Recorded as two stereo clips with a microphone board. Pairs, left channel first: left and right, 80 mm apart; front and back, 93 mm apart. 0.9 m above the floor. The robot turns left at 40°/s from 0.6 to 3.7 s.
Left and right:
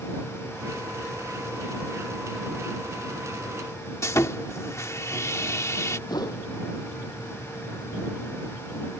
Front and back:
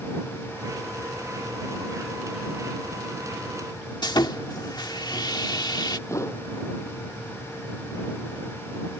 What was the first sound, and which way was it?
Sawing, 40° left.